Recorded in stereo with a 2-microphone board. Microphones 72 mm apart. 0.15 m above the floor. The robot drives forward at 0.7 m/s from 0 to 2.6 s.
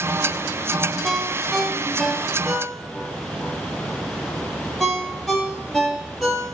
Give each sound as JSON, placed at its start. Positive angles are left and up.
{"t": 1.0, "sound": "a ringtone", "side_deg": 5, "distance_m": 1.1}